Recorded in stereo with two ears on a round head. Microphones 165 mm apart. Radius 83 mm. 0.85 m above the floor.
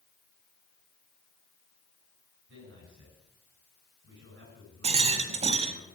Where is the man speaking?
70° right (ahead or behind), 8.5 m.